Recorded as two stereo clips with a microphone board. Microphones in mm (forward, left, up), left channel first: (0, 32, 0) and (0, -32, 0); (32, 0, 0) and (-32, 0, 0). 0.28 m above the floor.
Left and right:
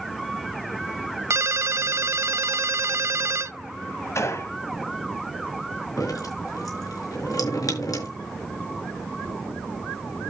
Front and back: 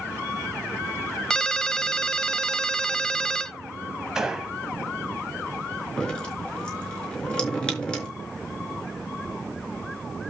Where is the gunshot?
100° left, 1.7 m.